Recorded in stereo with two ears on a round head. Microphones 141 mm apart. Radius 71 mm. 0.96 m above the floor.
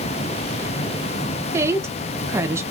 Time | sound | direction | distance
1.5 | a woman speaking | 15° right (ahead or behind) | 0.9 m